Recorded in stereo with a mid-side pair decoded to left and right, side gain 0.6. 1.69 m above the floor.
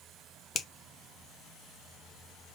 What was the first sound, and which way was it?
A finger snap, 30° left.